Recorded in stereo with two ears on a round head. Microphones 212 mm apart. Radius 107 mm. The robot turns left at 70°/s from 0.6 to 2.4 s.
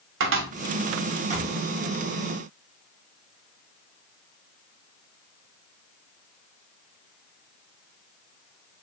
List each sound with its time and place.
0.2 s a cupboard door: 55° right (ahead or behind), 0.8 m; by 1.5 s 20° right (ahead or behind), 0.8 m